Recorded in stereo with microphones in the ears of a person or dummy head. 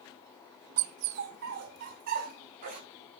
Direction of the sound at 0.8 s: 50° right (ahead or behind).